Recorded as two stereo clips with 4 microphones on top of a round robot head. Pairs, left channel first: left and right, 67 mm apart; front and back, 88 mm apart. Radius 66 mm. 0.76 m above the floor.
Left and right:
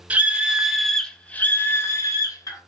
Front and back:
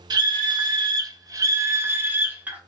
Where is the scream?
155° right, 0.9 m; by 2.6 s 110° left, 1.0 m.